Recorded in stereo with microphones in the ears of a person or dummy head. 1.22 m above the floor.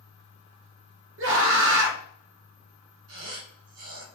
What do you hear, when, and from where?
1.2 s a scream: 70° right (ahead or behind), 1.4 m
3.1 s a squeak: 85° right, 2.5 m